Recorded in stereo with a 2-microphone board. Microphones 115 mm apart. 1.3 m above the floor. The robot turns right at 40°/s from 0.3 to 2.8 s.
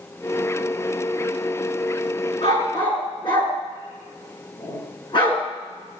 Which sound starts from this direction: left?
A dog barking, at 2.4 s.